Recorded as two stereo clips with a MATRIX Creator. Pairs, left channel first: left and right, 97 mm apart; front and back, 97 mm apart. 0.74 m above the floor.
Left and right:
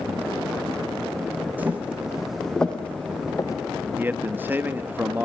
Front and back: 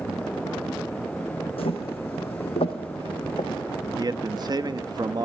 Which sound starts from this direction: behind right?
A man speaking, at 4.0 s.